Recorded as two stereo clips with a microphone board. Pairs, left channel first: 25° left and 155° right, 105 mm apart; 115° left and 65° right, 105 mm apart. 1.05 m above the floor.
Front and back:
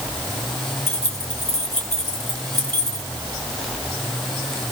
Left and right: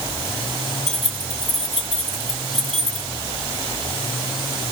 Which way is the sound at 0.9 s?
45° right.